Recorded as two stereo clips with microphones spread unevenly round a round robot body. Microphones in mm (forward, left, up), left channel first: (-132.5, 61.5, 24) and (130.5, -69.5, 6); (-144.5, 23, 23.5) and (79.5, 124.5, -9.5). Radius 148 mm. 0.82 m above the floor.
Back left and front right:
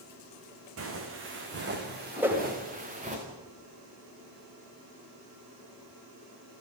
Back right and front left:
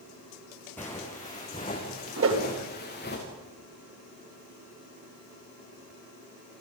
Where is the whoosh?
55° left, 3 m.